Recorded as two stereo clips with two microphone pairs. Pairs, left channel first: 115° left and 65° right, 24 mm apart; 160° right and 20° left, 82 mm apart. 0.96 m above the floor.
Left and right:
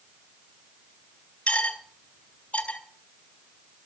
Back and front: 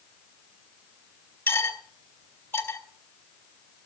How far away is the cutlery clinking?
About 3.5 m.